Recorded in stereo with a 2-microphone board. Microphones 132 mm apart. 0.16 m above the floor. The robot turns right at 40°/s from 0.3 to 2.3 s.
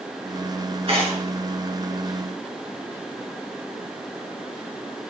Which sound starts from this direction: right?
Tearing paper, at 0.9 s.